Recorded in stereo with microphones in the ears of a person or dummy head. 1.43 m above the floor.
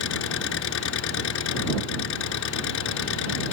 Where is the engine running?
65° left (ahead or behind).